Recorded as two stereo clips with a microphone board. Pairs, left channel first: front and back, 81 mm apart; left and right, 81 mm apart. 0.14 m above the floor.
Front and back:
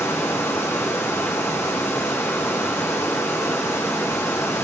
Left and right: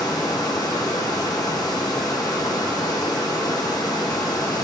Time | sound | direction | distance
0.0 | running water | 55° left | 4 m